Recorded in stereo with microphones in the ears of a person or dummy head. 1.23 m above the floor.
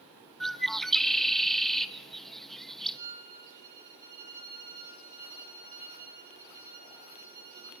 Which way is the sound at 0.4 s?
Centre (ahead or behind).